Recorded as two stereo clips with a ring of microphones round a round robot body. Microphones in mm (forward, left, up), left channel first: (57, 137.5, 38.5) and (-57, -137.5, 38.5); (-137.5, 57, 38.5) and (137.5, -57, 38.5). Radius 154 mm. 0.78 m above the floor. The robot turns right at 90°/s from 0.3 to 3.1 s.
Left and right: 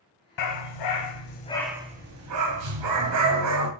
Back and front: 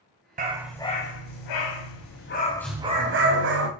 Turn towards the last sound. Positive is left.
turn(degrees=-75)